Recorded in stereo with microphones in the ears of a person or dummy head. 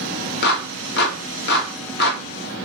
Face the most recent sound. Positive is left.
turn(degrees=60)  # may be behind; listen again after turning